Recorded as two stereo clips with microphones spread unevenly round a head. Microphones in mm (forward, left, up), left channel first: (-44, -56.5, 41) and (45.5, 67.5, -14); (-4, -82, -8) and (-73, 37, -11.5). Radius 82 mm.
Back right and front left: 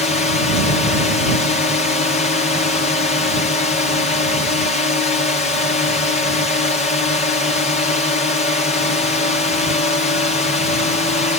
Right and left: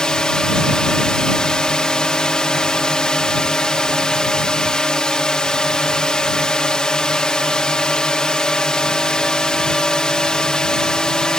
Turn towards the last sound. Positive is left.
turn(degrees=-135)